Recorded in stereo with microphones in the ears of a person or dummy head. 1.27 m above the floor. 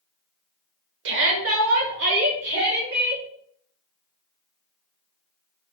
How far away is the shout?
About 0.8 m.